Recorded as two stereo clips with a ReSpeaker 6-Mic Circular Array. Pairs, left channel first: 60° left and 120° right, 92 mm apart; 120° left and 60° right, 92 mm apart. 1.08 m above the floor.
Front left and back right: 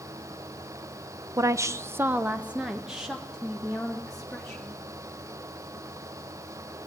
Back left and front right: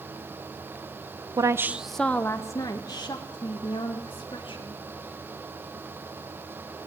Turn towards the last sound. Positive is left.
turn(degrees=145)